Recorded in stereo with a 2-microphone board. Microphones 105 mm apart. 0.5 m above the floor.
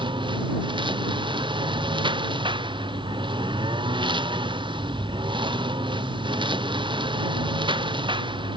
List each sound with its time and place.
0.0 s a lawn mower: 50° right (ahead or behind)